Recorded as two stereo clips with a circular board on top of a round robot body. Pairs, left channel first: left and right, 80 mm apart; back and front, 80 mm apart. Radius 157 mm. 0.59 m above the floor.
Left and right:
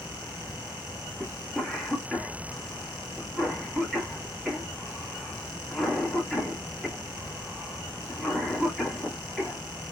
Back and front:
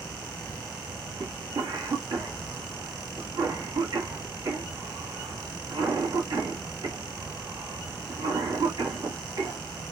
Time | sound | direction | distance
1.2 | a cough | 5° left | 1.8 m